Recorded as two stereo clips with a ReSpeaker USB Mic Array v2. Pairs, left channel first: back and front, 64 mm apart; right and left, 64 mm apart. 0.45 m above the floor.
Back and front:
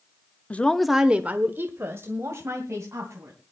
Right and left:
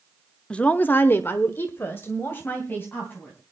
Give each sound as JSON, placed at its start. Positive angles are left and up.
{"t": 0.5, "sound": "a woman speaking", "azimuth_deg": -150, "distance_m": 0.8}